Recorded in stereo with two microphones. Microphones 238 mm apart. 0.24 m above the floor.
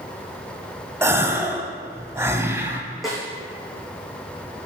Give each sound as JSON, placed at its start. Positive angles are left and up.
{"t": 1.0, "sound": "a gasp", "side_deg": -10, "distance_m": 0.8}
{"t": 3.0, "sound": "a snare drum", "side_deg": 0, "distance_m": 2.5}